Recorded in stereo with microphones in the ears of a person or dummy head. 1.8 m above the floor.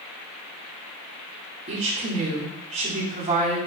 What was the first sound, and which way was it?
A woman speaking, 35° right (ahead or behind).